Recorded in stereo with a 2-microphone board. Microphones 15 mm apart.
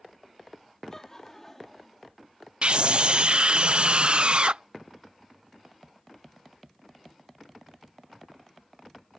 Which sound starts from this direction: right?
A scream, at 2.6 s.